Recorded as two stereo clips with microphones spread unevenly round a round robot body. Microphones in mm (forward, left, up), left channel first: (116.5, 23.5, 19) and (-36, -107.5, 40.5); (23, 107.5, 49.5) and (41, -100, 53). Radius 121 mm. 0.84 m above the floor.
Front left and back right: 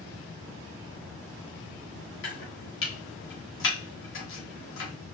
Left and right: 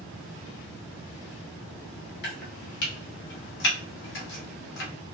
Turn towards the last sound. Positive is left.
turn(degrees=65)